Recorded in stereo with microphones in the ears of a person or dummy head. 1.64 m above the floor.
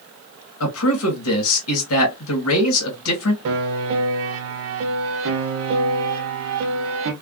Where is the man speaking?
80° left, 1.9 m.